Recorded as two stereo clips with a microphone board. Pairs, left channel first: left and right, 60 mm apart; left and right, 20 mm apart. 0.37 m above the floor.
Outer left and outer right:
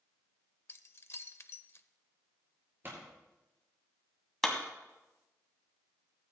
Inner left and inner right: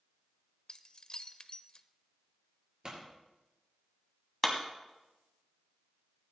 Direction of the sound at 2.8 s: 40° right (ahead or behind).